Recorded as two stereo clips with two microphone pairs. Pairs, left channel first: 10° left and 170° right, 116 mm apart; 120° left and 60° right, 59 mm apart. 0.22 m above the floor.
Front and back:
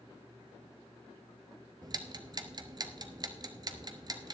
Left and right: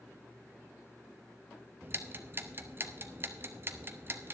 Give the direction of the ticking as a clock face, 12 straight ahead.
4 o'clock.